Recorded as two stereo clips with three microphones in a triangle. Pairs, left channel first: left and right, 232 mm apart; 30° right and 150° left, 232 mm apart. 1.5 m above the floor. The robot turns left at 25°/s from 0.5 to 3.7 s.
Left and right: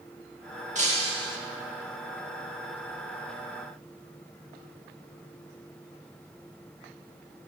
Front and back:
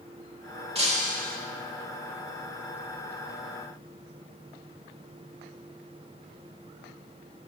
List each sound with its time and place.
0.8 s breaking glass: 145° right, 1.9 m; by 1.4 s 160° right, 1.9 m